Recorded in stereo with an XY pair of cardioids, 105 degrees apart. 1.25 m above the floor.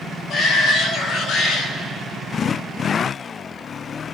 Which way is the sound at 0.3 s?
70° left.